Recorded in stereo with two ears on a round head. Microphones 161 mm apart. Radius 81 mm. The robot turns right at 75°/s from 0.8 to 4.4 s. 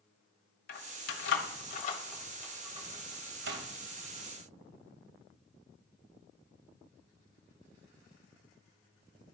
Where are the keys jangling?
50° left (ahead or behind), 1.3 m; by 3.6 s 75° right (ahead or behind), 1.3 m.